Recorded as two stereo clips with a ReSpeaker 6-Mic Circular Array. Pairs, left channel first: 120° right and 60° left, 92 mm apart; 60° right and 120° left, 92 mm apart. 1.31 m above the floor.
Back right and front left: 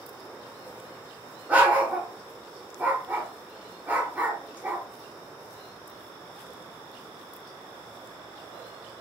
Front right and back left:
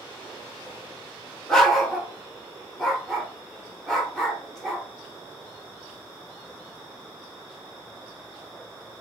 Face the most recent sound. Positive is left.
turn(degrees=15)